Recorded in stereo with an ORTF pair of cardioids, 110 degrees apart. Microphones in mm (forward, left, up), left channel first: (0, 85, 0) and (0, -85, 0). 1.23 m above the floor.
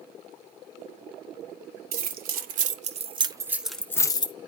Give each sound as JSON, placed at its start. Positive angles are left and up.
{"t": 1.9, "sound": "keys jangling", "azimuth_deg": -65, "distance_m": 1.1}